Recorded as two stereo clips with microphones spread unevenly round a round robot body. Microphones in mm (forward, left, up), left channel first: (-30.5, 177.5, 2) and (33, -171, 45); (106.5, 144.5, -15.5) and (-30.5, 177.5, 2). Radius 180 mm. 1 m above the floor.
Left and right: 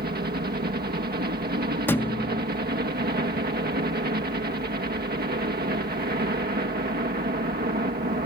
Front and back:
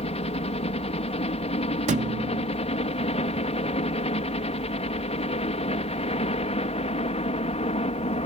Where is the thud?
170° right.